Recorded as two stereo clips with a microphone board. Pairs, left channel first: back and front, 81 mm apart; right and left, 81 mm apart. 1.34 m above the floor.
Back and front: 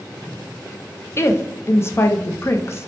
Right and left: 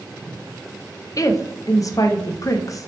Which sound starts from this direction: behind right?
A woman speaking, at 1.2 s.